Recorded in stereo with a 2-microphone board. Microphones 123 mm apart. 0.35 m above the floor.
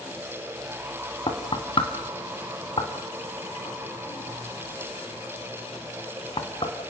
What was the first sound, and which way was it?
Knocking, 45° left (ahead or behind).